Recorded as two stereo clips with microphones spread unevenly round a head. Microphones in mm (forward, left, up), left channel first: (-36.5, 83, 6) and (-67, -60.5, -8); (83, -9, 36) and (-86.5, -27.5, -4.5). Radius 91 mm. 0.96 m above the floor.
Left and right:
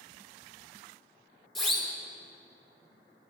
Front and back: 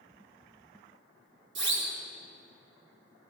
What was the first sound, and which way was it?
A siren, 165° left.